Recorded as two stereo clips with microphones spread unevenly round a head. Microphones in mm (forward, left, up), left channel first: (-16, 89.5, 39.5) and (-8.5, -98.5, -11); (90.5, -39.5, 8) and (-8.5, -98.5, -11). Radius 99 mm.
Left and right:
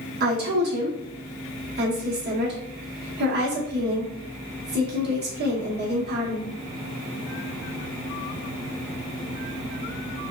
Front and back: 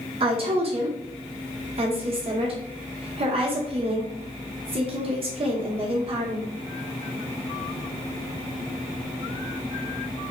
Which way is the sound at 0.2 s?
115° right.